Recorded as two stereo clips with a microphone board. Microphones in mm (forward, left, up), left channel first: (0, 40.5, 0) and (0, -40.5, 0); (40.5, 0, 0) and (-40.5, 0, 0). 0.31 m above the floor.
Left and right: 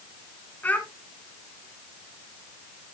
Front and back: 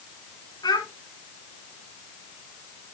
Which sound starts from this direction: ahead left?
A child speaking, at 0.6 s.